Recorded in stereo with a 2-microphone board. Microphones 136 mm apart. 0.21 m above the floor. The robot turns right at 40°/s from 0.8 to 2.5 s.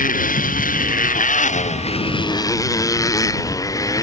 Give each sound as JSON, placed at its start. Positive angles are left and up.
{"t": 0.0, "sound": "a motorcycle", "azimuth_deg": 85}